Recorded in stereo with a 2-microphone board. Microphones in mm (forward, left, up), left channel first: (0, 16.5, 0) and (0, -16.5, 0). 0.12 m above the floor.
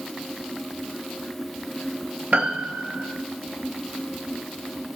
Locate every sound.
2.3 s a piano: 60° right (ahead or behind), 1.3 m